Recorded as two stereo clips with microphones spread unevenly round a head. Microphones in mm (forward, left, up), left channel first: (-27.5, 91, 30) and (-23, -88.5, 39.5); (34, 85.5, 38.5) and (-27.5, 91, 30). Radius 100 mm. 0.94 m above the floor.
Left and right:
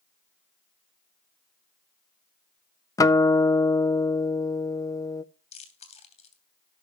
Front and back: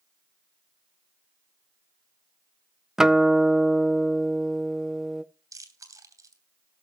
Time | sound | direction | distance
3.0 | a guitar | 125° left | 0.6 m
5.5 | chewing | 150° left | 2.5 m